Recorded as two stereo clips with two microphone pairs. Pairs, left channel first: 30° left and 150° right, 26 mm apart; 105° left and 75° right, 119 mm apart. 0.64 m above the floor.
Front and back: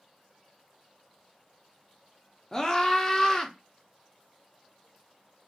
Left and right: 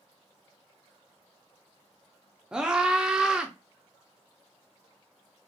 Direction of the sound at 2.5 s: 5° right.